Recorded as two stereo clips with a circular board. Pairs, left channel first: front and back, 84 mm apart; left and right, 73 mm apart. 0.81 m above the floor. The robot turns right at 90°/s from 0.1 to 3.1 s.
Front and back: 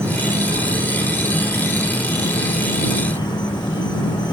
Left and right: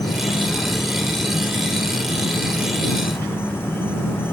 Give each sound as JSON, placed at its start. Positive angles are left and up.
{"t": 0.0, "sound": "an insect", "azimuth_deg": 120}